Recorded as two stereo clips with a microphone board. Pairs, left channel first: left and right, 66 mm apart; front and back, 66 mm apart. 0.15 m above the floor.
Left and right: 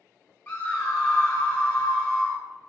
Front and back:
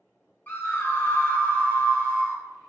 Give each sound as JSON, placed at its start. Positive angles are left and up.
{"t": 0.5, "sound": "a scream", "azimuth_deg": 35, "distance_m": 1.7}